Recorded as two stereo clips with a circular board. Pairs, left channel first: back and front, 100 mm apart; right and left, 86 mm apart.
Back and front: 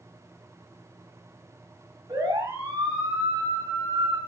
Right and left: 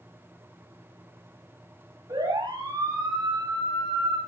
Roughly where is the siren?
Ahead left.